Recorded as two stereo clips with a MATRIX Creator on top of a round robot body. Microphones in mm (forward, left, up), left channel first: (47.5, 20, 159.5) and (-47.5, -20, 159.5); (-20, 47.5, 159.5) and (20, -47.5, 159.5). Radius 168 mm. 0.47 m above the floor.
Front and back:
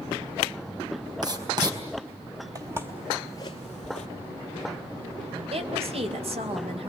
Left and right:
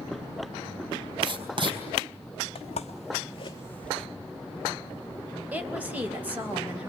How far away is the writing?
About 4 m.